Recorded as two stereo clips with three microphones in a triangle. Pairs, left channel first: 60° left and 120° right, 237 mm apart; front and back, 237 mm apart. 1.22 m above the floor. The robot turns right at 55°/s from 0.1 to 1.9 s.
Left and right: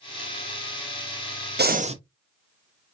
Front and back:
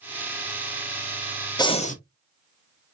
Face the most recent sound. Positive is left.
turn(degrees=-55)